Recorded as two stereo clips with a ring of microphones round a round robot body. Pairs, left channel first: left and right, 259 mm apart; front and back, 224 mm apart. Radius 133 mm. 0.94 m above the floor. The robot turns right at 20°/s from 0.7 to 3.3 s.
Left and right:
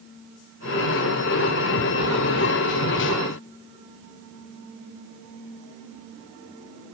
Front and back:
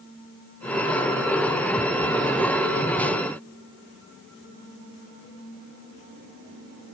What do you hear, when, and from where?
Only background noise.